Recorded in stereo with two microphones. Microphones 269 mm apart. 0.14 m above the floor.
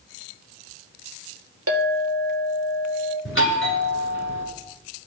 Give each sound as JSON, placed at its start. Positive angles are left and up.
{"t": 1.7, "sound": "a clink", "side_deg": -65, "distance_m": 1.8}
{"t": 3.2, "sound": "a doorbell", "side_deg": 50, "distance_m": 2.0}